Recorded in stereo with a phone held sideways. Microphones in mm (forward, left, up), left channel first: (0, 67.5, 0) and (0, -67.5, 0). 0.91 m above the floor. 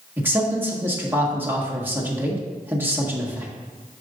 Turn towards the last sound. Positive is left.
turn(degrees=-15)  # may be behind; listen again after turning